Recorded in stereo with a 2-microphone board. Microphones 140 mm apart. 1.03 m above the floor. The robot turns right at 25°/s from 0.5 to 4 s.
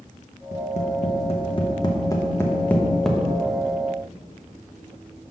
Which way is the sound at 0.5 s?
60° left (ahead or behind).